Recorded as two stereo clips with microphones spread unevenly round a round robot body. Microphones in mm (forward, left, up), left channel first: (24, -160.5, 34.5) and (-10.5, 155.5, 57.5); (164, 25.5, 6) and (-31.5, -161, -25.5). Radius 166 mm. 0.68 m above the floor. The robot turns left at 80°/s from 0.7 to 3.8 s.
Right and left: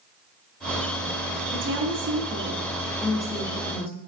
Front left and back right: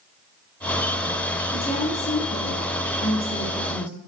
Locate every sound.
1.5 s a woman speaking: 120° left, 1.0 m; by 4.0 s 65° right, 1.0 m